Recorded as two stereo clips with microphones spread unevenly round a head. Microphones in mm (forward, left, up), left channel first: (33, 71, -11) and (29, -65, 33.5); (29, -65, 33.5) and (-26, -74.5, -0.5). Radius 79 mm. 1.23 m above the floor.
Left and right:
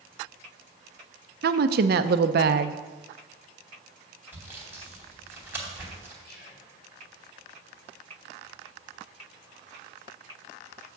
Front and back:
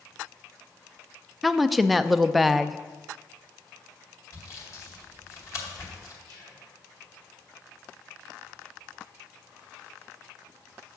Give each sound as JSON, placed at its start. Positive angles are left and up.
{"t": 1.4, "sound": "a woman speaking", "azimuth_deg": -80, "distance_m": 0.6}
{"t": 4.3, "sound": "sawing", "azimuth_deg": -15, "distance_m": 2.5}
{"t": 6.2, "sound": "whispering", "azimuth_deg": 100, "distance_m": 3.5}